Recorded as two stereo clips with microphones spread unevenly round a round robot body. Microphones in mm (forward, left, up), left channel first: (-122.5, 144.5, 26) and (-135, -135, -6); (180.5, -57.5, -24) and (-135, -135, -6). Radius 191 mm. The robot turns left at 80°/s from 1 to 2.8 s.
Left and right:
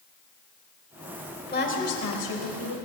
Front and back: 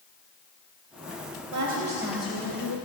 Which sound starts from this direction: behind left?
A woman speaking, at 1.5 s.